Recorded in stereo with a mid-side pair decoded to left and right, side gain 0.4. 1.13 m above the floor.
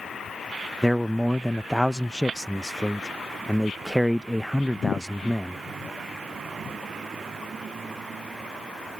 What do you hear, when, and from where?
0.8 s a man speaking: straight ahead